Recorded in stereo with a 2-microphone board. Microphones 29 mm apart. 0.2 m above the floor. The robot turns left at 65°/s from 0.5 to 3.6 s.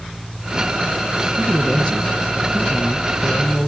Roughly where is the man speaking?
Behind.